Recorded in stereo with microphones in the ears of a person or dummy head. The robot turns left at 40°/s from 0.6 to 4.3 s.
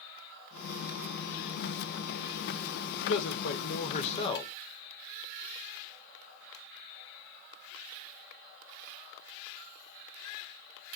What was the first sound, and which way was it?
A man speaking, 85° left.